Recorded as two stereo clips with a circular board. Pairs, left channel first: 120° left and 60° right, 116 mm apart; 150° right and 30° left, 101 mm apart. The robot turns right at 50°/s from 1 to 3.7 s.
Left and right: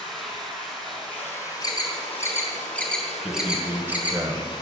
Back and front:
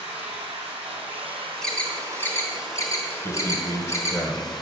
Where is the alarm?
130° left, 2.5 m; by 4.2 s 125° right, 2.5 m.